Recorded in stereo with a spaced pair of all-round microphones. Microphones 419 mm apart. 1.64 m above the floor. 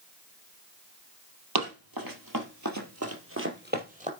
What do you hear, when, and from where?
1.6 s running footsteps: 60° right (ahead or behind), 3 m; by 4.1 s 15° right (ahead or behind), 3 m